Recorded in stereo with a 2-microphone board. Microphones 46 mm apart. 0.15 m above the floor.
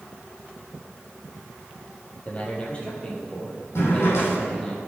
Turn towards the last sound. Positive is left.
turn(degrees=70)  # may be behind; listen again after turning